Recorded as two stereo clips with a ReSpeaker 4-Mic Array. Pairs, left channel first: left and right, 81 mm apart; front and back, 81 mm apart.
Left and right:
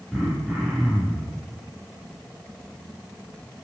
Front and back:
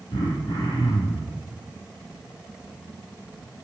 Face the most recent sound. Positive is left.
turn(degrees=5)